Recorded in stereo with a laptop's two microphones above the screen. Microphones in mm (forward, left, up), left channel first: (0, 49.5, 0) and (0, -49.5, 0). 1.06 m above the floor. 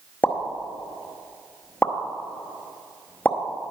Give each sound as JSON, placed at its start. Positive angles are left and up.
{"t": 0.2, "sound": "a pop", "side_deg": 20, "distance_m": 0.8}